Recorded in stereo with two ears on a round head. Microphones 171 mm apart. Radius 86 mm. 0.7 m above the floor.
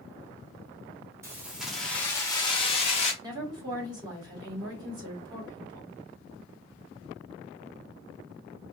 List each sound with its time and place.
1.2 s keys jangling: 15° right (ahead or behind), 1.3 m; by 3.1 s 40° left (ahead or behind), 1.6 m
3.2 s a woman speaking: 25° right (ahead or behind), 2 m